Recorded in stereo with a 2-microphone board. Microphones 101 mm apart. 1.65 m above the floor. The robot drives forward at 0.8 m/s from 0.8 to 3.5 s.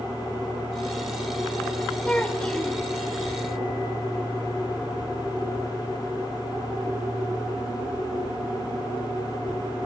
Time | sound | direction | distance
2.0 | a child speaking | 15° left (ahead or behind) | 0.9 m